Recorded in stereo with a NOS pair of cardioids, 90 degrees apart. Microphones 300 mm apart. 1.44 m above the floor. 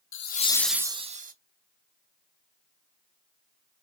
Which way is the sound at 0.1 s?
45° left.